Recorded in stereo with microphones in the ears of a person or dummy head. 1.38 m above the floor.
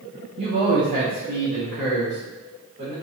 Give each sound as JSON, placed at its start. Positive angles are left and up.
{"t": 0.4, "sound": "a man speaking", "side_deg": -30, "distance_m": 0.5}